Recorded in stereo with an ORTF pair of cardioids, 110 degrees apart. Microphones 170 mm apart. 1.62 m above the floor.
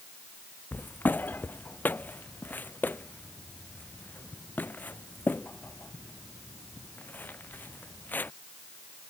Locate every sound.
0.7 s footsteps: 10° left